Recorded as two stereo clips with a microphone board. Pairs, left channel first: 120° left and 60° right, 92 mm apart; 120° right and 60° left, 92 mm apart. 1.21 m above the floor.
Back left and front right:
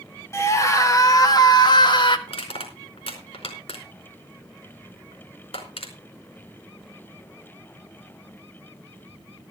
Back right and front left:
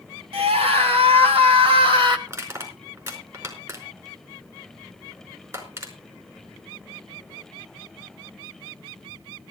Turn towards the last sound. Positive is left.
turn(degrees=115)